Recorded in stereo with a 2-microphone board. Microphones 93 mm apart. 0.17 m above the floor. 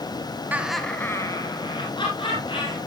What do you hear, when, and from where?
0.5 s laughter: 15° right (ahead or behind), 1.1 m; by 2.8 s 65° left (ahead or behind), 3 m